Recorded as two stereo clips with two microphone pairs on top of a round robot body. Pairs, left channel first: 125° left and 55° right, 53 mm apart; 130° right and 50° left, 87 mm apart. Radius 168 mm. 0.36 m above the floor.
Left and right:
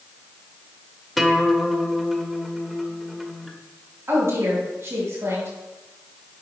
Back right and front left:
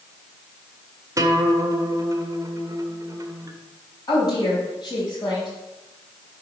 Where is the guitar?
30° left, 1.2 m.